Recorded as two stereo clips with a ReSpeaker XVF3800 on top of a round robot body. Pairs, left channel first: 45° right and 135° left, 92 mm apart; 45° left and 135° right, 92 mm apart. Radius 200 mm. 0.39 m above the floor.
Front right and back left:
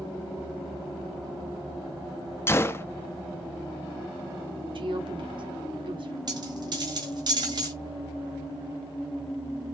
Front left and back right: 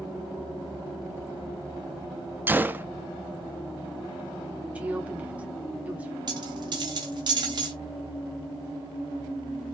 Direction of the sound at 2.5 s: 85° right.